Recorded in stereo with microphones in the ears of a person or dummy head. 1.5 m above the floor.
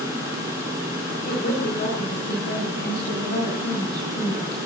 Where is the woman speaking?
60° left (ahead or behind), 7.5 m.